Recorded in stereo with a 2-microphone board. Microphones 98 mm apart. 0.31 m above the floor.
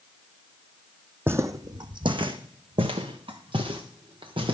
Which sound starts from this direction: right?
Footsteps, at 1.3 s.